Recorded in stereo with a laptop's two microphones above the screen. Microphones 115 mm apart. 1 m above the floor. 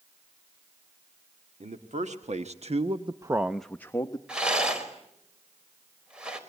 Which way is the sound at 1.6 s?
85° right.